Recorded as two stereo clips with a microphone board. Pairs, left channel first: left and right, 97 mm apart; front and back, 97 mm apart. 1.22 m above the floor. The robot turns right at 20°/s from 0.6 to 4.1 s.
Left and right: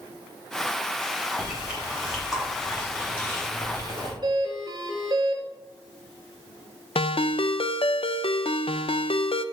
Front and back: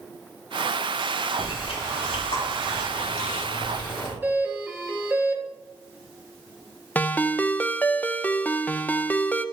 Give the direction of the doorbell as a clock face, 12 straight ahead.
4 o'clock.